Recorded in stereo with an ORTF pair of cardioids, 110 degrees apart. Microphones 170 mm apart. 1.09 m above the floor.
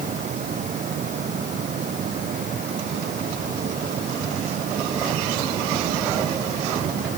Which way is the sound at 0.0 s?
50° right.